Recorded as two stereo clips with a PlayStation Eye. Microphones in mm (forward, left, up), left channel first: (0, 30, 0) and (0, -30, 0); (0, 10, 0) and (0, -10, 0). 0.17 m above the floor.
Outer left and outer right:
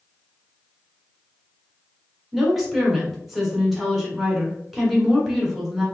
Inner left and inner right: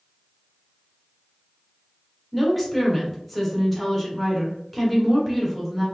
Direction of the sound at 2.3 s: Centre (ahead or behind).